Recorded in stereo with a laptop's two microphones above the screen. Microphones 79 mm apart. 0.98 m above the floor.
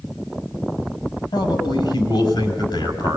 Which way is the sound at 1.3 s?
65° left (ahead or behind).